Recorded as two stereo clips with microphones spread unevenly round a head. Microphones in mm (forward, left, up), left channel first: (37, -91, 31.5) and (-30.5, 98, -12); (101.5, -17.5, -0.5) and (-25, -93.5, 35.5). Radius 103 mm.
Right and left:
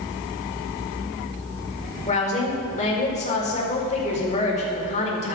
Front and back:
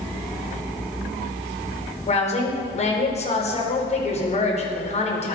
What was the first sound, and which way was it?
A woman speaking, 10° right.